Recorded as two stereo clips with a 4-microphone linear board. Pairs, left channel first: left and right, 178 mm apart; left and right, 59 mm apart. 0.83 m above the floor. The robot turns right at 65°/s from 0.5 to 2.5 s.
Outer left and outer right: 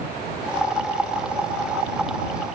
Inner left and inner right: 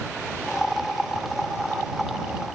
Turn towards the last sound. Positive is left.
No sound to turn to.